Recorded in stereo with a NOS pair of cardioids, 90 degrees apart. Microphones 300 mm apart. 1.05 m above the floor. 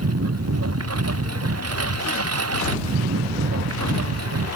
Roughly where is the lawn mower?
Ahead right.